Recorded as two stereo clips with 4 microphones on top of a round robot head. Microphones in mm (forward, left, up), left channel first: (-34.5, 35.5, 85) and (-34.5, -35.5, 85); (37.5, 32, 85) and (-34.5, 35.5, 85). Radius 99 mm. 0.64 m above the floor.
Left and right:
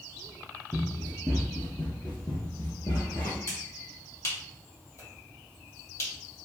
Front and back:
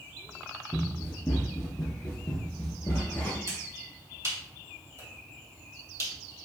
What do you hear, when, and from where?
0.7 s running footsteps: 85° right, 0.6 m; by 3.4 s 55° left, 1.2 m
3.5 s a finger snap: 135° left, 1.8 m